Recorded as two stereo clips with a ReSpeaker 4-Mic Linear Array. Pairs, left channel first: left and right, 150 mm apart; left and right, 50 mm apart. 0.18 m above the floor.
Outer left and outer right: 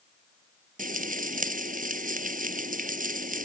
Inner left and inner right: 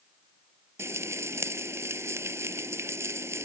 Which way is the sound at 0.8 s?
65° right (ahead or behind).